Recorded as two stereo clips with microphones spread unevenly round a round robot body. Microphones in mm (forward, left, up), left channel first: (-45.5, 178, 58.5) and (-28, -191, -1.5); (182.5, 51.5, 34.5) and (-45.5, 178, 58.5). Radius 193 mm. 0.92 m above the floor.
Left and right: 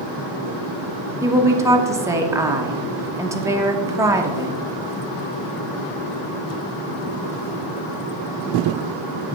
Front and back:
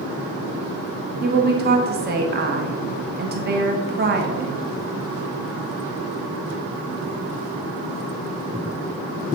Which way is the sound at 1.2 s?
160° right.